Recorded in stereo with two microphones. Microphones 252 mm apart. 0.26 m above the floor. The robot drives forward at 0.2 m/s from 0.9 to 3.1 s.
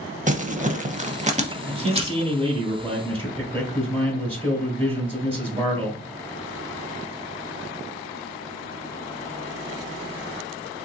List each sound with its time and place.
0.3 s crumpling: 30° right (ahead or behind), 0.6 m; by 2.2 s 20° right (ahead or behind), 0.7 m
1.6 s a man speaking: 20° right (ahead or behind), 1.6 m